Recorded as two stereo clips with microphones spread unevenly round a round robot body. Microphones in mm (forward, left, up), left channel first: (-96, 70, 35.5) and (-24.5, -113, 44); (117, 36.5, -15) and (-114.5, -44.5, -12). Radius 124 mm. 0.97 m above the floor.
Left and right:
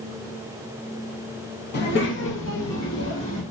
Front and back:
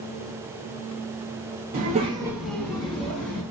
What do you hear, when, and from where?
1.7 s a child speaking: 145° left, 1.1 m; by 3.4 s 75° left, 1.5 m